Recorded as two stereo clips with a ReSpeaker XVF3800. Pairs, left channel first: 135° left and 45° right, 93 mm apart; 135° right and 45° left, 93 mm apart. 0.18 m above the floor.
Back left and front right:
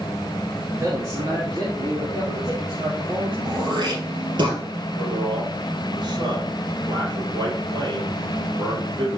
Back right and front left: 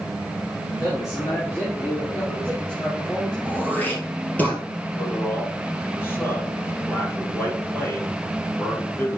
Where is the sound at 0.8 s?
100° right, 2.5 m; by 3.4 s 55° right, 4.5 m.